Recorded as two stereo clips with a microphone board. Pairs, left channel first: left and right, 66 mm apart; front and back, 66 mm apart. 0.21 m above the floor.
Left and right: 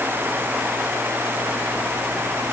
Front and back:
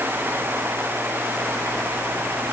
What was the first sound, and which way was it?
Only background noise.